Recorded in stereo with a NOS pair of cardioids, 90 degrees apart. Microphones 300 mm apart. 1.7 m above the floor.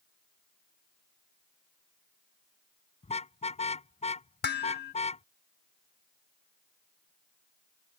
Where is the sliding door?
I don't hear a sliding door.